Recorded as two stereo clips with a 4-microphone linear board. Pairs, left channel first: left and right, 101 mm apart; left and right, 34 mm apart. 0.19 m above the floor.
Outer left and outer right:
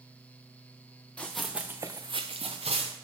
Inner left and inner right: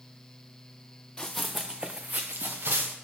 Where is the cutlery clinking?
I don't hear cutlery clinking.